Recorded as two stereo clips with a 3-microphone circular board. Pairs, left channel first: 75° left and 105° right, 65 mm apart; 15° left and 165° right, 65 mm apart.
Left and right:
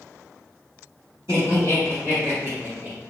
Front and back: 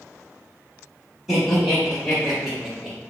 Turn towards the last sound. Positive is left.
turn(degrees=-85)